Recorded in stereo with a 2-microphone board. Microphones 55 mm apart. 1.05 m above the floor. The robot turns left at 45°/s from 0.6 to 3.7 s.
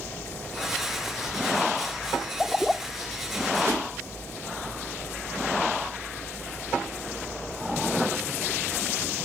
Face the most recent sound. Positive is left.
turn(degrees=-60)  # may be behind; listen again after turning